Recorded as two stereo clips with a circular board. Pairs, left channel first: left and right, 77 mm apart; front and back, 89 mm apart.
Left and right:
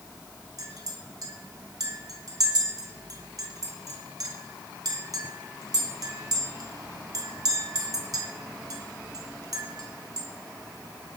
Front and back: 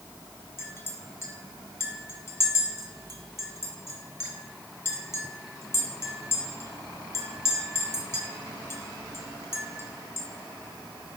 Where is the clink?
60° right, 1.7 m.